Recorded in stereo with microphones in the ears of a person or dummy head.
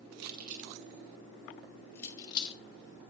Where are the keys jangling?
60° right (ahead or behind), 1.8 m; by 2.6 s 30° left (ahead or behind), 1.8 m.